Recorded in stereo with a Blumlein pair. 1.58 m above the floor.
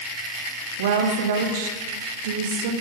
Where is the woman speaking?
55° right, 0.9 m.